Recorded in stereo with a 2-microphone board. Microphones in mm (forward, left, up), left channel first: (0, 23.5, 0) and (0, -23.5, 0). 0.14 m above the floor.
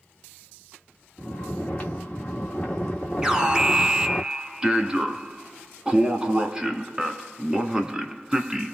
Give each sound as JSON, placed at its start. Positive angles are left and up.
{"t": 1.2, "sound": "snoring", "side_deg": 10, "distance_m": 1.8}
{"t": 3.2, "sound": "an alarm", "side_deg": -15, "distance_m": 1.0}